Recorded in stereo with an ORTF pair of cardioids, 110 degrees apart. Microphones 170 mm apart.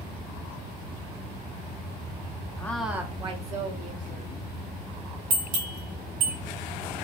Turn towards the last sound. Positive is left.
turn(degrees=-55)